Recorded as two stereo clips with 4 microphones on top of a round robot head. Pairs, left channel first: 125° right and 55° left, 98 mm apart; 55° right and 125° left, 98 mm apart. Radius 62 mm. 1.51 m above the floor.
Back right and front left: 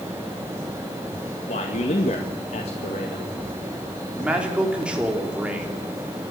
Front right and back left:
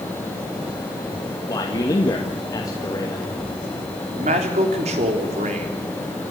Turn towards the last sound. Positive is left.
turn(degrees=135)